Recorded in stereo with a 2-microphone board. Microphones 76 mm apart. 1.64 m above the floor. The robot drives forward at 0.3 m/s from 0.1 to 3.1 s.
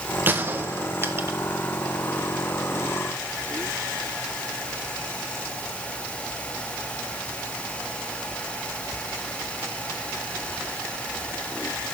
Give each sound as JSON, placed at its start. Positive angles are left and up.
{"t": 0.3, "sound": "a gunshot", "side_deg": -25, "distance_m": 1.6}